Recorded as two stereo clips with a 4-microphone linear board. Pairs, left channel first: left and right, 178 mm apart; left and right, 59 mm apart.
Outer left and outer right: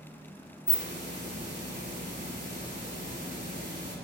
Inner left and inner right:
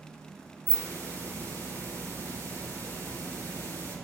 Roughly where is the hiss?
Left.